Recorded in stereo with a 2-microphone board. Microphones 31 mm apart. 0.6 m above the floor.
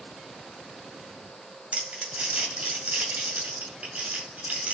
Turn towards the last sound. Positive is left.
turn(degrees=-50)  # may be behind; listen again after turning